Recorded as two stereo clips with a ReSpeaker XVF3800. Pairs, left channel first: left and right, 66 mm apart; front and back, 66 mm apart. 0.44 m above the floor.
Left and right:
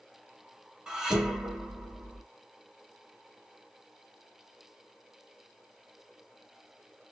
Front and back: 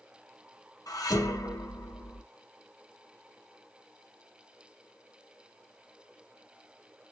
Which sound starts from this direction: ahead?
Dishes clattering, at 0.9 s.